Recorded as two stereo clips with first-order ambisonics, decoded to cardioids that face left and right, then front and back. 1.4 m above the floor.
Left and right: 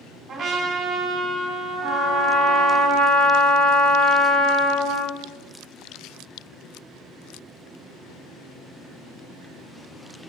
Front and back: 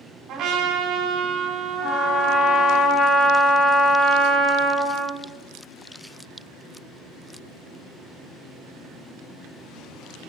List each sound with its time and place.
0.3 s a trumpet: 140° right, 1.3 m
1.8 s a trumpet: 35° right, 1.5 m